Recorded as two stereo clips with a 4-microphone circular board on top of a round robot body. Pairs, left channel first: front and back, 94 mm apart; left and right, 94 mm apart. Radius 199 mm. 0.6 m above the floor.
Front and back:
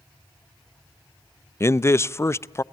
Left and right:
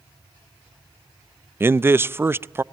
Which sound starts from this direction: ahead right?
A man speaking, at 1.6 s.